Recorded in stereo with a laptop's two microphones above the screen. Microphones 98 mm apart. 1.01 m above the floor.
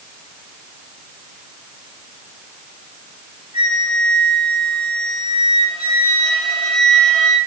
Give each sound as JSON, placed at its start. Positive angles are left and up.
{"t": 3.5, "sound": "a flute", "side_deg": -65, "distance_m": 4.5}